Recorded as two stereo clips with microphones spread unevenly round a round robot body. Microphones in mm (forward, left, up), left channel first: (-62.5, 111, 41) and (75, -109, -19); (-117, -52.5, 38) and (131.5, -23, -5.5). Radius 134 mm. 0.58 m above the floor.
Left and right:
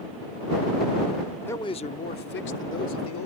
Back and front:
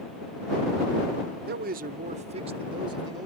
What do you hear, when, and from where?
1.5 s a man speaking: 30° left; by 3.3 s 80° left